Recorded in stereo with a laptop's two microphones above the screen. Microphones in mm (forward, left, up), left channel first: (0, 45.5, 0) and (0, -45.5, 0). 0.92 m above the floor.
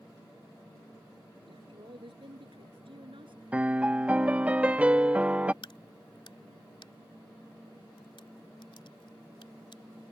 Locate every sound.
1.5 s a woman speaking: 65° right (ahead or behind)
3.5 s a piano: 15° right (ahead or behind)
5.6 s a crack: 65° left (ahead or behind)